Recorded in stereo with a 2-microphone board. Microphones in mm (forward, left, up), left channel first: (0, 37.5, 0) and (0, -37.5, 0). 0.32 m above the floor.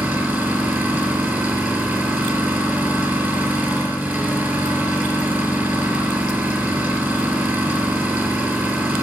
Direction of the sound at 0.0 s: 25° right (ahead or behind).